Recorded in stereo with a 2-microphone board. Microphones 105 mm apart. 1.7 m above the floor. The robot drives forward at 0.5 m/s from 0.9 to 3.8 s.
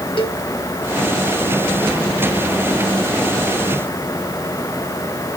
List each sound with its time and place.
0.2 s a cowbell: 55° left (ahead or behind), 1.5 m